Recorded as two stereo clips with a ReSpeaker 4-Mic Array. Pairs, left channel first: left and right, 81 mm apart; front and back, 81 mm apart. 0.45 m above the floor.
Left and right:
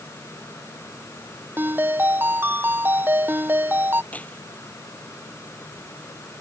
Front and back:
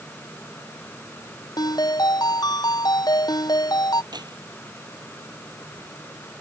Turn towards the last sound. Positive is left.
turn(degrees=160)